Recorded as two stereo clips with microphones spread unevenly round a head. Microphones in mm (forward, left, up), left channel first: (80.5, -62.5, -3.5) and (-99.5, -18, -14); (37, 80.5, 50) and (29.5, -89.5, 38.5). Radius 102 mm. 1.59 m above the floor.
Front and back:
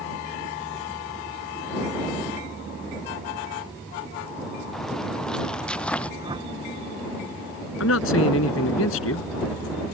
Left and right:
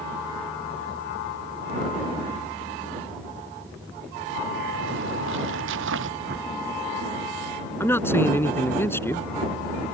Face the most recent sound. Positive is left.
turn(degrees=10)